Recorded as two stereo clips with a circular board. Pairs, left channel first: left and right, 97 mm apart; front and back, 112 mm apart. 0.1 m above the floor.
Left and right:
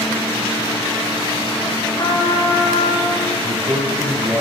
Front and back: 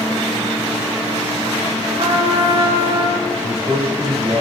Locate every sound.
2.0 s a trumpet: 145° left, 6 m
3.4 s a man speaking: 155° right, 7 m